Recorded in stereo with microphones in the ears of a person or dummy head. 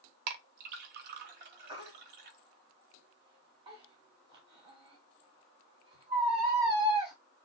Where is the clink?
50° right (ahead or behind), 0.6 m.